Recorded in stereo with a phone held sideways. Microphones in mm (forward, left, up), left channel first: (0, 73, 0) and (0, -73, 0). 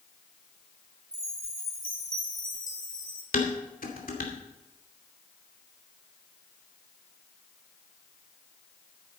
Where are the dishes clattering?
75° left (ahead or behind), 2.5 m.